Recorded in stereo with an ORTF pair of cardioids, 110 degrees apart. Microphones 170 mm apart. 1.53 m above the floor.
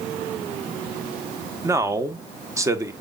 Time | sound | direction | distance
1.6 | a man speaking | 15° right | 1.2 m